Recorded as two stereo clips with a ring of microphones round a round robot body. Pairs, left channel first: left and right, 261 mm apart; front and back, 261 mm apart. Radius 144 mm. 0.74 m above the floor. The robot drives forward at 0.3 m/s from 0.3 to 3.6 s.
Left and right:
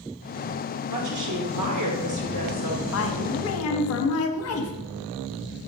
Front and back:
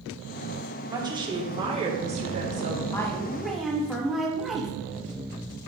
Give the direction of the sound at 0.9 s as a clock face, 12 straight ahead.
3 o'clock.